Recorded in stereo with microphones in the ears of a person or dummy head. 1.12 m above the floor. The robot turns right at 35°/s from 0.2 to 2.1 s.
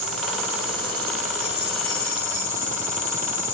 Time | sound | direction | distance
0.0 | an insect | 85° right | 2.5 m